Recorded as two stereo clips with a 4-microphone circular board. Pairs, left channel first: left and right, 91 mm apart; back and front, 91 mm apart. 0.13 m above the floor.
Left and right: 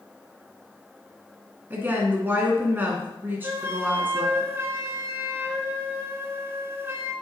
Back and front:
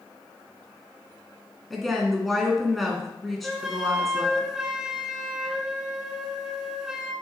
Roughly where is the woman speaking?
Right.